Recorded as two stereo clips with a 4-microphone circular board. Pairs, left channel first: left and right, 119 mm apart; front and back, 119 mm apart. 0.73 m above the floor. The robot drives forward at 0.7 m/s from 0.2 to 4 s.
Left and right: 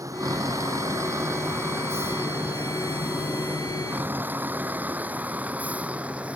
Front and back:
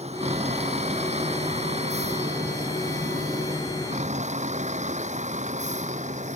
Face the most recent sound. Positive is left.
turn(degrees=-170)